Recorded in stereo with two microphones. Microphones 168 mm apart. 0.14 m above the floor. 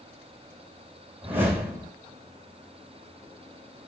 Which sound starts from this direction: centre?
A whoosh, at 1.2 s.